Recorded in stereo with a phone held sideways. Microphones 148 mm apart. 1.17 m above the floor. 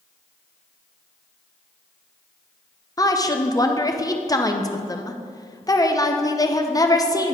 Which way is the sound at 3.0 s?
25° left (ahead or behind).